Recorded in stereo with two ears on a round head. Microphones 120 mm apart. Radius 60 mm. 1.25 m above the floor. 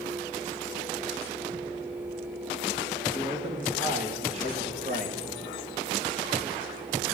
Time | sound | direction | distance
3.1 | a man speaking | 30° right (ahead or behind) | 2.5 m